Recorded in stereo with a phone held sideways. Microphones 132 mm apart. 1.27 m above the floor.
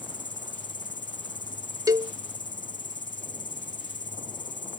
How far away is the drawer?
No drawer in this recording.